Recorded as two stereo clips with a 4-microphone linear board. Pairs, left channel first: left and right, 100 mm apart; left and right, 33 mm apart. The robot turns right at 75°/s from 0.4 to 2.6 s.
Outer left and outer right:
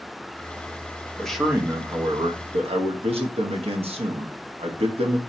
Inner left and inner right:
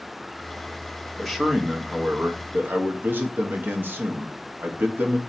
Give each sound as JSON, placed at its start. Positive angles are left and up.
{"t": 1.2, "sound": "a man speaking", "azimuth_deg": 170, "distance_m": 0.9}